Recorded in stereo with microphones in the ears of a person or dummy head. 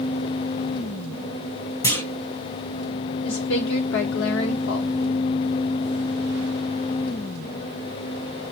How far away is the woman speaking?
About 1.0 m.